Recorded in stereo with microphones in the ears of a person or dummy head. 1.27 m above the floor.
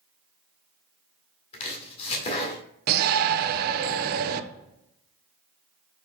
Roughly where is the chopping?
Left.